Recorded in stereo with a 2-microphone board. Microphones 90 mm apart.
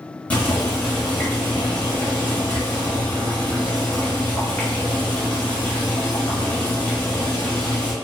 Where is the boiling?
15° left (ahead or behind), 1.2 m.